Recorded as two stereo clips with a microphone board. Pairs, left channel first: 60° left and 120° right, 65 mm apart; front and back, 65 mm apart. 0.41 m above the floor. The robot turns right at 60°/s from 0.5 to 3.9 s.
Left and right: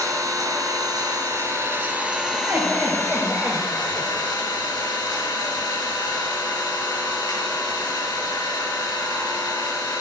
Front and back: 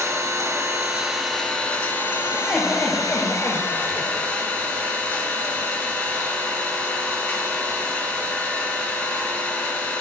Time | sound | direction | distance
0.0 | an engine running | 140° right | 4 m
2.3 | laughter | 95° right | 1.2 m